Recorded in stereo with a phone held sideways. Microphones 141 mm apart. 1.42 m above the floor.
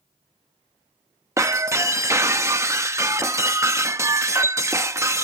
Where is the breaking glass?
20° right (ahead or behind).